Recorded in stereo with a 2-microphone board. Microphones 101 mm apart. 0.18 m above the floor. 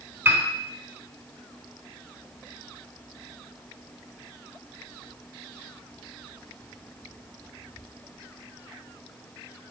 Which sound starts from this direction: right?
A piano, at 0.2 s.